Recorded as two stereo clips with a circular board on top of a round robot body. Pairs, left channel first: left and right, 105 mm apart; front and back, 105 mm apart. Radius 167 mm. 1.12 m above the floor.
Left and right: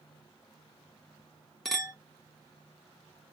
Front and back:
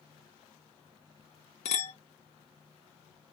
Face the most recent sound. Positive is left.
turn(degrees=0)